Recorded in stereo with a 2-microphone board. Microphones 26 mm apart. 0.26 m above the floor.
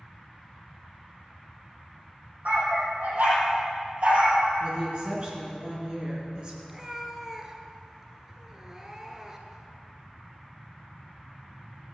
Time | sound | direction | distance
2.5 | a dog barking | 80° right | 4.5 m
4.6 | a woman speaking | 35° right (ahead or behind) | 3.5 m
6.7 | a cat meowing | 15° right (ahead or behind) | 1.4 m